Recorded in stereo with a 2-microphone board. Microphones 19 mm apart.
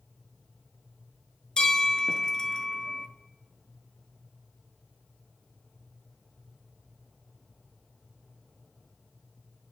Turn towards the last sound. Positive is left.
turn(degrees=45)  # may be behind; listen again after turning